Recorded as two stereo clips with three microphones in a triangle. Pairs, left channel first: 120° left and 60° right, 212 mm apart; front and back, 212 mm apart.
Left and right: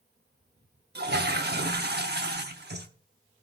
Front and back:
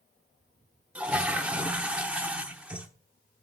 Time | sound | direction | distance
0.9 | a toilet flushing | 100° right | 0.9 m